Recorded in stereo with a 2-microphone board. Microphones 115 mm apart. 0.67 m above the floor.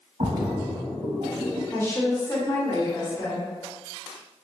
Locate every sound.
0.2 s a splash: 60° right (ahead or behind), 0.8 m
1.7 s a woman speaking: 20° left (ahead or behind), 1.1 m